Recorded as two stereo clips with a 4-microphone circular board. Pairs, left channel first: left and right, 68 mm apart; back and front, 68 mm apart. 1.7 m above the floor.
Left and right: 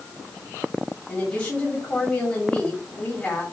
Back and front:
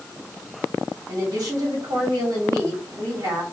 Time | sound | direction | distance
1.1 | a woman speaking | 25° left | 2 m